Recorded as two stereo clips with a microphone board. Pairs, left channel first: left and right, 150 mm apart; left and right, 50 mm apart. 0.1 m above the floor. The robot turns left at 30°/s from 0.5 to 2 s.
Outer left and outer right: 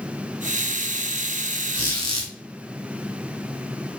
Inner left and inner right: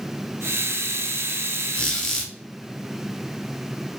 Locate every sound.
1.7 s a squeak: 25° left (ahead or behind), 1.1 m